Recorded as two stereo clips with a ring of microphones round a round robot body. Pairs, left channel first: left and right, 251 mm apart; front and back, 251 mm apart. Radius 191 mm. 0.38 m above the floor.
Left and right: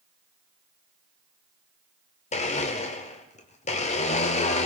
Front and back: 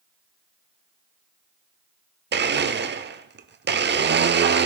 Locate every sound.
2.3 s a blender: 145° left, 0.7 m